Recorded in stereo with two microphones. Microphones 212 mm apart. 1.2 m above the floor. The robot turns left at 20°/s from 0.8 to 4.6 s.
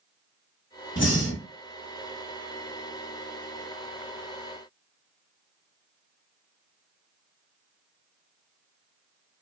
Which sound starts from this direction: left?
Breathing, at 1.0 s.